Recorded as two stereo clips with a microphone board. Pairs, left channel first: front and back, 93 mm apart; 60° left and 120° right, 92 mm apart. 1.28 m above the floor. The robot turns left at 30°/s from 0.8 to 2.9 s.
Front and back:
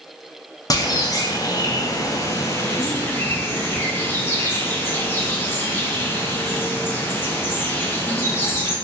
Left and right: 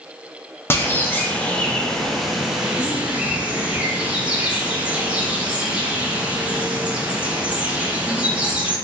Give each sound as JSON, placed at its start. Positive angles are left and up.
{"t": 0.7, "sound": "a bird", "azimuth_deg": 10, "distance_m": 0.6}